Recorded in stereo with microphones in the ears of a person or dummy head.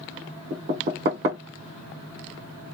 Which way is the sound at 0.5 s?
30° right (ahead or behind).